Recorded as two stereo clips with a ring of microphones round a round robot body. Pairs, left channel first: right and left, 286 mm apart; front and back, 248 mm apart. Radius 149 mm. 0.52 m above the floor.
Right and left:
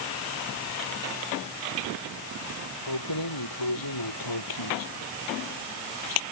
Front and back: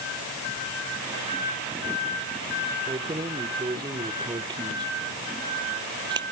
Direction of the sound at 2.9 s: 105° right.